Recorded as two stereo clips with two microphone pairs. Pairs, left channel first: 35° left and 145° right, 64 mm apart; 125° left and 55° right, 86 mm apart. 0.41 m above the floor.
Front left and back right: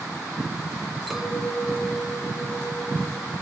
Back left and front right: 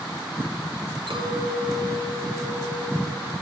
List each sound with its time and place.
1.1 s a clink: 55° right, 5 m